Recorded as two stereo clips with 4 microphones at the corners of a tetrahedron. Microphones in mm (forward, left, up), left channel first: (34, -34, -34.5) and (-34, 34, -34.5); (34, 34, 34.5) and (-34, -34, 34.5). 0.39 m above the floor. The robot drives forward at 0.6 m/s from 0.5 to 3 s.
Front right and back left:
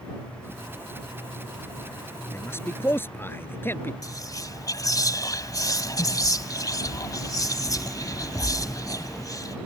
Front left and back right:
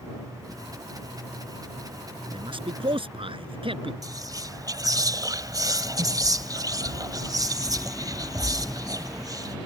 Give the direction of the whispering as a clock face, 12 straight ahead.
3 o'clock.